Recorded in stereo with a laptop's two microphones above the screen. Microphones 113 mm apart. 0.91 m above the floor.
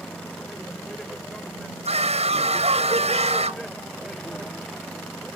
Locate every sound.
0.0 s a vehicle: 5° left (ahead or behind)
1.9 s a scream: 70° right (ahead or behind)